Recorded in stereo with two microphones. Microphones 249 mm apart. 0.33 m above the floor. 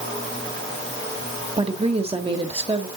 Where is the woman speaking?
25° right (ahead or behind), 1.2 m.